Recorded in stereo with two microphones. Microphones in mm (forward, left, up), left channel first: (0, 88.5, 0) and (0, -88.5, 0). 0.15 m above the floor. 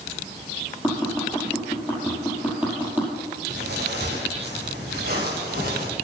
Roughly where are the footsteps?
Right.